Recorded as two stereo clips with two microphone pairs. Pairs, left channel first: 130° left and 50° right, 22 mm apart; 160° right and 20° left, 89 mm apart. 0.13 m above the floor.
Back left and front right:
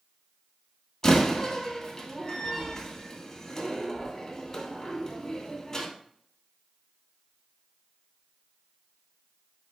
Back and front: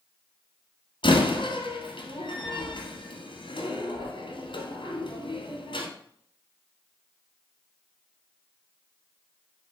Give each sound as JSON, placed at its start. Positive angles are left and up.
{"t": 1.0, "sound": "a door slam", "azimuth_deg": -170, "distance_m": 2.0}